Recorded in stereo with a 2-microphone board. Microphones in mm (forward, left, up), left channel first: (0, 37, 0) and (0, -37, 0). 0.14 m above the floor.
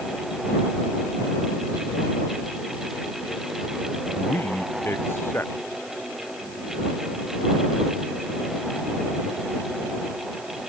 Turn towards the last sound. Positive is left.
turn(degrees=30)  # may be behind; listen again after turning